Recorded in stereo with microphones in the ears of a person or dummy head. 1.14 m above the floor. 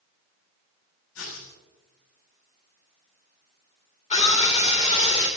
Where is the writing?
85° left, 8 m.